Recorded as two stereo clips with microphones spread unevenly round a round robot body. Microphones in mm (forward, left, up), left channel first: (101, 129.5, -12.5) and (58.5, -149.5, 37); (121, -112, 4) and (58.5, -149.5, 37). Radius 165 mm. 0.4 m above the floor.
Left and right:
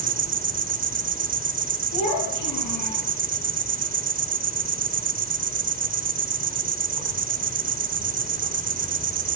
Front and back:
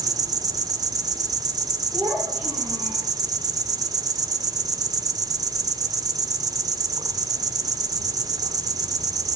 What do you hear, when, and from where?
0.0 s an insect: 145° right, 0.7 m
1.9 s a child speaking: 60° left, 6.5 m